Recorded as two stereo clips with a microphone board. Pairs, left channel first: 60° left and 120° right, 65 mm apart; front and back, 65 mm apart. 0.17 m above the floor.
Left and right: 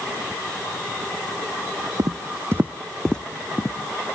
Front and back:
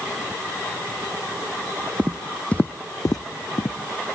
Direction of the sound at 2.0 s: 110° right.